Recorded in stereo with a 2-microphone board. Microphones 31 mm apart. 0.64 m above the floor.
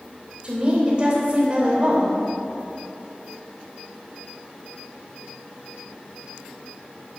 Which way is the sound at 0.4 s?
35° right (ahead or behind).